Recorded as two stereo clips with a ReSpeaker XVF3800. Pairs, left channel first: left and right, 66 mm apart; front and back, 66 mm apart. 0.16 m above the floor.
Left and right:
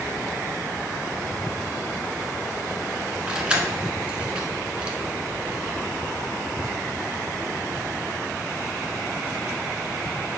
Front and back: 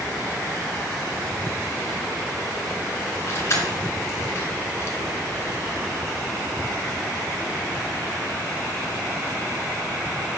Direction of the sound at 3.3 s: 20° right.